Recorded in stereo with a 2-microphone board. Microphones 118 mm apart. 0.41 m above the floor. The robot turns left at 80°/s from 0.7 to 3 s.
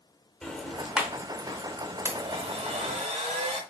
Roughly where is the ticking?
Centre.